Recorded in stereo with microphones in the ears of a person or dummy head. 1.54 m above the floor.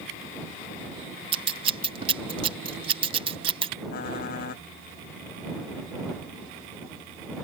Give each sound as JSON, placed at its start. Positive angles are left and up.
{"t": 1.3, "sound": "scissors", "side_deg": -35}
{"t": 3.9, "sound": "typing on a keyboard", "side_deg": 50}